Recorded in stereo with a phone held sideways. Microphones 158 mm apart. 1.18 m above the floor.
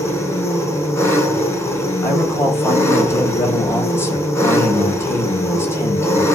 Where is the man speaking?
15° left (ahead or behind), 7.5 m.